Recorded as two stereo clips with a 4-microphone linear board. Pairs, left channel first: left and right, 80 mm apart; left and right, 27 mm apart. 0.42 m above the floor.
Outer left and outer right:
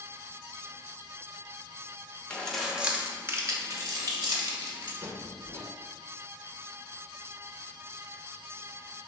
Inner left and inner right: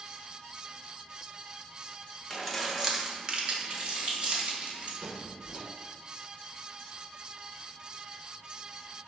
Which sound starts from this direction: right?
A squeak, at 5.0 s.